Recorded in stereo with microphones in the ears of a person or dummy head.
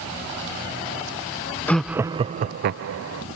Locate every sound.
1.7 s laughter: 5° left (ahead or behind); by 3.2 s 80° right